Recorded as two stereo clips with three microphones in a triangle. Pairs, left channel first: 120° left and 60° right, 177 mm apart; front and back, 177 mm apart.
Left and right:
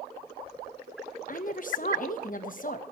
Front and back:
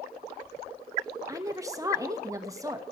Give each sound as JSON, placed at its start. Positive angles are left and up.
{"t": 1.3, "sound": "a woman speaking", "azimuth_deg": 115, "distance_m": 0.9}